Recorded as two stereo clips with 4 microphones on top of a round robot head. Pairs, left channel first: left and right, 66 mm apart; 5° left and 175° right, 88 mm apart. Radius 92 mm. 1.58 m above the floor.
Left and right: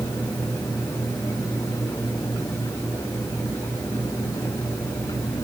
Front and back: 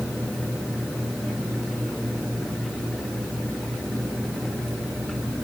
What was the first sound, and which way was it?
Only background noise.